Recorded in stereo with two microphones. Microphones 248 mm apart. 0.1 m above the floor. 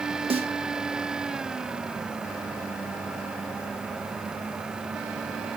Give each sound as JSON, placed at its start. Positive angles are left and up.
{"t": 0.3, "sound": "a snare drum", "side_deg": -25, "distance_m": 2.0}